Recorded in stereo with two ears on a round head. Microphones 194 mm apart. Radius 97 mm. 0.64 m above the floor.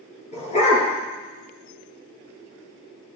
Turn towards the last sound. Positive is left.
turn(degrees=30)  # may be behind; listen again after turning